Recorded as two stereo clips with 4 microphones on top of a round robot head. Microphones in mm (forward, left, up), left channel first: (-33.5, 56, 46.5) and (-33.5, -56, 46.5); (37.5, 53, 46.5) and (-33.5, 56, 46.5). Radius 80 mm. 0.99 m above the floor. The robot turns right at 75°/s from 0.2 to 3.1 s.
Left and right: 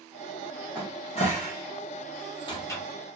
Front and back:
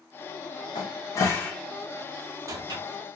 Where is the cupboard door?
10° left, 0.7 m; by 2.8 s 165° left, 0.7 m.